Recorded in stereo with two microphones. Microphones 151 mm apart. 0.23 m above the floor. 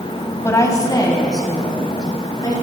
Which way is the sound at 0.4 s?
20° left (ahead or behind).